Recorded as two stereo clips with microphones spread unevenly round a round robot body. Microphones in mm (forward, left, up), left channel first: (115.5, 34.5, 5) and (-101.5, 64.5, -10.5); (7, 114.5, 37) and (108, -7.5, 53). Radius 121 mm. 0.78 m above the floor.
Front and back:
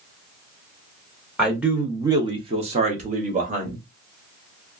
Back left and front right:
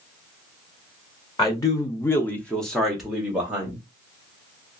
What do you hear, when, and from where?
1.4 s a man speaking: 90° left, 0.8 m; by 3.8 s 135° right, 1.2 m